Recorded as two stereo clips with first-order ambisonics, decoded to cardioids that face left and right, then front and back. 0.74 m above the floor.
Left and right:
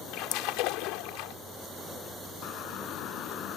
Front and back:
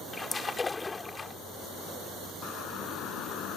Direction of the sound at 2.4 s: 50° left.